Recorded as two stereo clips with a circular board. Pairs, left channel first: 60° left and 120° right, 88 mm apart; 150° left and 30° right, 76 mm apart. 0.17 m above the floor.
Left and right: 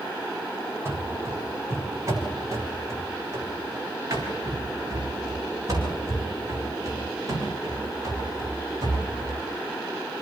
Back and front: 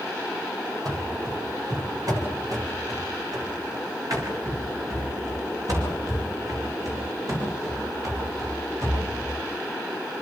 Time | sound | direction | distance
0.8 | running footsteps | 60° right | 6.5 m